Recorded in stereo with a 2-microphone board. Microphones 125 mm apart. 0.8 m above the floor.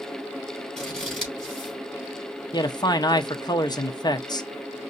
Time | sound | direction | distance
0.8 | scissors | centre (ahead or behind) | 3.5 m
2.5 | a man speaking | 35° left (ahead or behind) | 0.7 m